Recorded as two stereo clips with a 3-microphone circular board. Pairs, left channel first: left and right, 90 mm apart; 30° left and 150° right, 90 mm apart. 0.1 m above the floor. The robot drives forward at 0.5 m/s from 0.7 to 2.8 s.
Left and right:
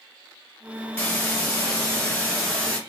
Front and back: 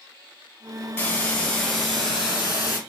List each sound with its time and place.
1.0 s a hiss: 65° left, 1.2 m; by 2.8 s 155° left, 1.4 m